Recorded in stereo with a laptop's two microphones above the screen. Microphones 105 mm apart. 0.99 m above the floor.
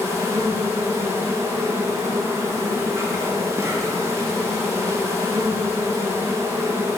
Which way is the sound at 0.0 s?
25° right (ahead or behind).